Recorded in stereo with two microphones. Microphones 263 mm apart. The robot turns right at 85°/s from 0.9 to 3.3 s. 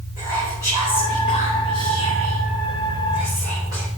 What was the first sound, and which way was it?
Whispering, 10° right.